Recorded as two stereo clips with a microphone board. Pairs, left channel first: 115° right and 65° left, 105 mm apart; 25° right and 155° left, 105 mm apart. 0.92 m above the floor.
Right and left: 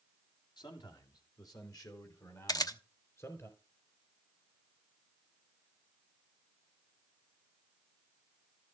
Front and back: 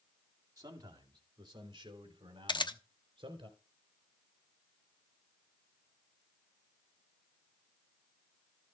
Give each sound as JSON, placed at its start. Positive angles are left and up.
{"t": 0.6, "sound": "a man speaking", "azimuth_deg": -150, "distance_m": 2.5}
{"t": 2.5, "sound": "a camera shutter", "azimuth_deg": -60, "distance_m": 0.9}